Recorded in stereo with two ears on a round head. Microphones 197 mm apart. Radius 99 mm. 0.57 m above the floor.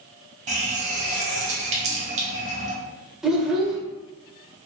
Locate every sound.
0.5 s a running tap: 35° right (ahead or behind), 0.8 m
3.2 s a child speaking: centre (ahead or behind), 0.8 m